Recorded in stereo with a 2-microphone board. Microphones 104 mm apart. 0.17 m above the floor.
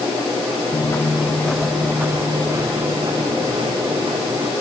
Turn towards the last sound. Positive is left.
turn(degrees=-60)  # may be behind; listen again after turning